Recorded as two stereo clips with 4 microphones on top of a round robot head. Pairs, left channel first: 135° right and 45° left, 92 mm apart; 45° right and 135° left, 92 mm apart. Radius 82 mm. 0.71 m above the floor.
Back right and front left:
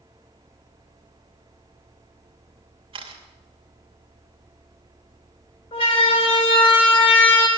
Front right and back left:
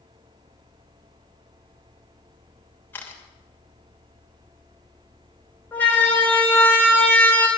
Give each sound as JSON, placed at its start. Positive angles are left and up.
{"t": 2.9, "sound": "a camera shutter", "azimuth_deg": 25, "distance_m": 2.5}
{"t": 5.7, "sound": "a siren", "azimuth_deg": -115, "distance_m": 4.5}